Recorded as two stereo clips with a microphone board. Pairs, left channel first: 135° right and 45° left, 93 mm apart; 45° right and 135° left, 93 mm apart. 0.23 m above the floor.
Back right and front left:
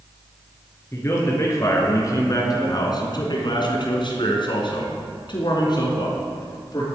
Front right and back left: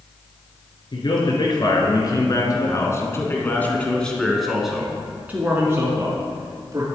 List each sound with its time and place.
0.9 s a man speaking: 75° right, 3 m; by 6.8 s 175° right, 3 m